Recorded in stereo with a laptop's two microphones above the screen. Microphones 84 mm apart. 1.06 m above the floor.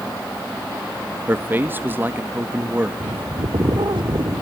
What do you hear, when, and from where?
1.3 s a man speaking: 25° right (ahead or behind), 1.3 m
3.0 s a bird: 70° right (ahead or behind), 1.4 m